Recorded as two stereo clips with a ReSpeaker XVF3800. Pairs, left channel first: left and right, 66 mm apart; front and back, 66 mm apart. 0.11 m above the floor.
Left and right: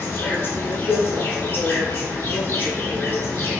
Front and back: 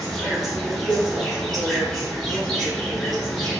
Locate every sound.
0.0 s an insect: 80° left, 0.8 m